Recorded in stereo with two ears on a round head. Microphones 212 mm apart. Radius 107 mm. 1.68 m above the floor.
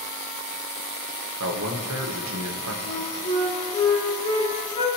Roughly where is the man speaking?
Right.